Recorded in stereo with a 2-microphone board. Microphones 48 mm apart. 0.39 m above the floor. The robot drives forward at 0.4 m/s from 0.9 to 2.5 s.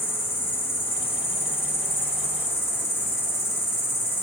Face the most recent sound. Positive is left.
turn(degrees=70)  # may be behind; listen again after turning